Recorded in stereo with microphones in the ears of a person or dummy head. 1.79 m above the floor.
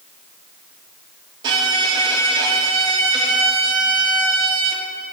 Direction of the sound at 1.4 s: 25° right (ahead or behind).